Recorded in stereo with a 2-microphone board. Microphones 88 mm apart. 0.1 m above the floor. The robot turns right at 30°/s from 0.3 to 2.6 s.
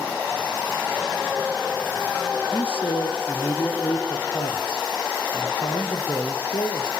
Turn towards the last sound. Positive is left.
turn(degrees=70)  # may be behind; listen again after turning